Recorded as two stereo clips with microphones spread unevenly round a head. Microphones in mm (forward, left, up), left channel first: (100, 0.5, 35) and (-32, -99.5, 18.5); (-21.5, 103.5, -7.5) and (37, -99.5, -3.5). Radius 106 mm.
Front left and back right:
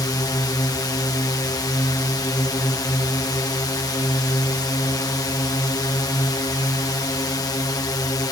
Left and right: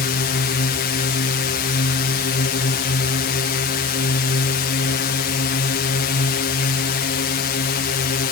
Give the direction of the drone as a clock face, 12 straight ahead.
8 o'clock.